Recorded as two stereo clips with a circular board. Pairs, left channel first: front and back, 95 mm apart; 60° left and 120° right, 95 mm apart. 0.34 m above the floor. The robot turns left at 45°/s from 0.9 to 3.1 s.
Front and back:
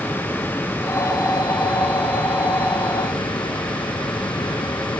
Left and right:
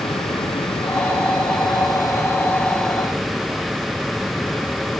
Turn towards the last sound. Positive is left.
turn(degrees=-35)